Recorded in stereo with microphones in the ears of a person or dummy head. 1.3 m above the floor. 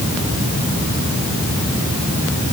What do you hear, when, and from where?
Only background noise.